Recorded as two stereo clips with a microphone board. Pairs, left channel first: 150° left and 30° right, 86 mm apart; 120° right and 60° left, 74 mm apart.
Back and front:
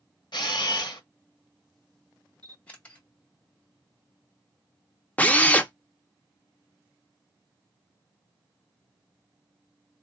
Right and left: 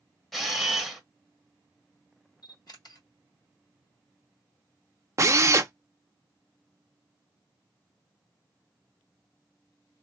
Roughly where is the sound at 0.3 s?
Behind left.